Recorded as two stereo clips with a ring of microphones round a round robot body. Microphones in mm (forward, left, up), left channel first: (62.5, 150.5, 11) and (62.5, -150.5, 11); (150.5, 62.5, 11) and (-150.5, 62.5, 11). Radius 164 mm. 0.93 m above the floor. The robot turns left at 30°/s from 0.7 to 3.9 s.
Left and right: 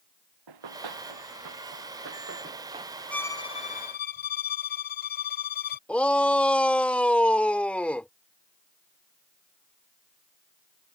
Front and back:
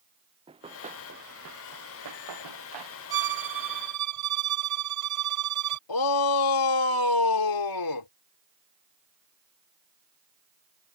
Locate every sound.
0.5 s running footsteps: 105° right; by 3.0 s 170° right
3.1 s a violin: 175° left; by 5.8 s 155° left
5.9 s a shout: 5° left